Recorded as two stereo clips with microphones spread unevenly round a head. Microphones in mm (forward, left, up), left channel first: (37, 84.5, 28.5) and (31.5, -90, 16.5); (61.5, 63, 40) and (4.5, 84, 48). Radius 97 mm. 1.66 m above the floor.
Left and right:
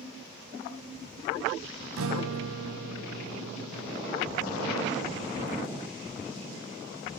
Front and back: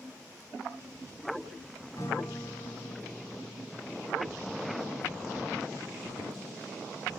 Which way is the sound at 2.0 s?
90° right.